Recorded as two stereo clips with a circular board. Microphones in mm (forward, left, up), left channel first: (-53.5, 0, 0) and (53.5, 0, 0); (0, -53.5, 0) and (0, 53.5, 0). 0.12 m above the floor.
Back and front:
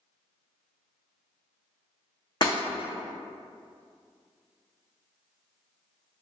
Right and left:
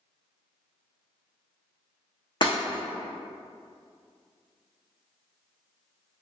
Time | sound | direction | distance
2.4 | breaking glass | 130° right | 0.8 m